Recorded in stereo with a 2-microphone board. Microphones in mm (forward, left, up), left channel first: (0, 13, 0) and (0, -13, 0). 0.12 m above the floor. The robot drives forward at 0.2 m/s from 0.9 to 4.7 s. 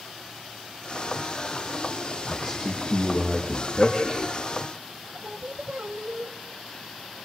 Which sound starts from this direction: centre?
A man speaking, at 2.3 s.